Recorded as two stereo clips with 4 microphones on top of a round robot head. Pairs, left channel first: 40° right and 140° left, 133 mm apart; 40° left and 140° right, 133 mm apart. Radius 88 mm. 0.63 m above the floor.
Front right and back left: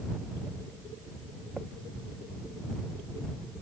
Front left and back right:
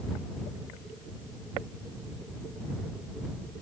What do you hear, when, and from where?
Only background noise.